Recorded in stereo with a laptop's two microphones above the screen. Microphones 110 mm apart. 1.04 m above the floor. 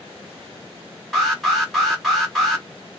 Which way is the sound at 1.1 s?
Centre (ahead or behind).